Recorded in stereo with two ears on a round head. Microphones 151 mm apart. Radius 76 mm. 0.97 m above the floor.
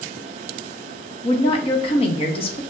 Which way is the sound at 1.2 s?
35° left (ahead or behind).